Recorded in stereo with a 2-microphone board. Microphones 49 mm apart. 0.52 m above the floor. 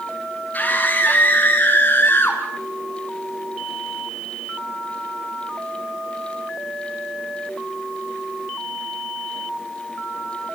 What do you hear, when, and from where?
0.5 s a scream: 30° left (ahead or behind), 5 m; by 2.4 s 40° left (ahead or behind), 4 m